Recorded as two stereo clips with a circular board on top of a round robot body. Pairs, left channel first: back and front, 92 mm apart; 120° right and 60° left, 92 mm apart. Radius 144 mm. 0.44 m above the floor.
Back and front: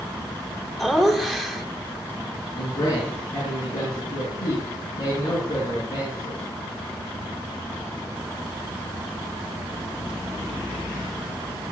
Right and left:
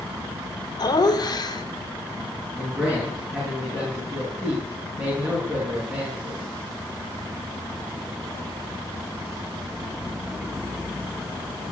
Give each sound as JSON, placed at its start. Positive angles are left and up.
{"t": 0.8, "sound": "laughter", "azimuth_deg": -95, "distance_m": 2.5}
{"t": 2.5, "sound": "a man speaking", "azimuth_deg": 130, "distance_m": 6.0}